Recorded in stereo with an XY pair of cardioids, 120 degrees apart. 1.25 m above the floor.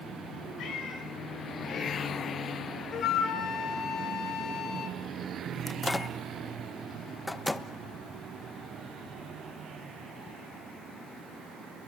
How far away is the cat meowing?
About 5 m.